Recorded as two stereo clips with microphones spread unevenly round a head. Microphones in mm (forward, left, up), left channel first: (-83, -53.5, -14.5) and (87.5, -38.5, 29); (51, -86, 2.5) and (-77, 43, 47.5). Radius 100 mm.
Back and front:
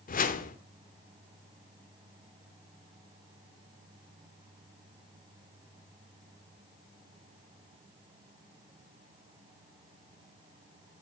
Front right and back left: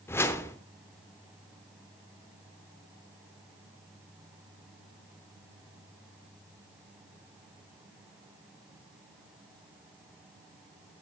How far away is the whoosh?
About 0.9 m.